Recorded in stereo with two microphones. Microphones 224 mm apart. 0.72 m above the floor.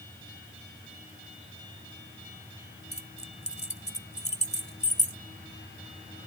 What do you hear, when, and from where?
2.9 s keys jangling: 30° left (ahead or behind)